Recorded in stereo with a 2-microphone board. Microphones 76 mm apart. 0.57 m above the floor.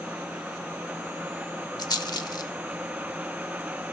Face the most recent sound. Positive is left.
turn(degrees=65)  # may be behind; listen again after turning